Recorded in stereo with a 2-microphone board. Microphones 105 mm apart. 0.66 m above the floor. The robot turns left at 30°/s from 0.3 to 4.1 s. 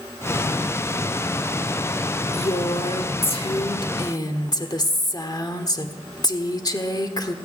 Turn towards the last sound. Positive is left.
turn(degrees=45)